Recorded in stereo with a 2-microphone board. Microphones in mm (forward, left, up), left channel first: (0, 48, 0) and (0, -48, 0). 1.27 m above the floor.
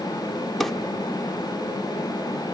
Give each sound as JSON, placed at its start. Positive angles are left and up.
{"t": 0.6, "sound": "a drawer", "side_deg": 5, "distance_m": 0.9}